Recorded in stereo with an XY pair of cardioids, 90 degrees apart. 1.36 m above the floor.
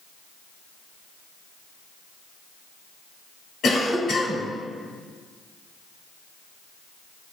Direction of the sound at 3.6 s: 65° left.